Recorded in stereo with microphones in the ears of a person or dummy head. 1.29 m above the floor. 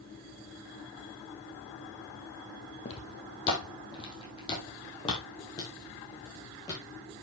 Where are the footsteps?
40° left (ahead or behind), 3 m; by 7.0 s 30° left (ahead or behind), 5.5 m.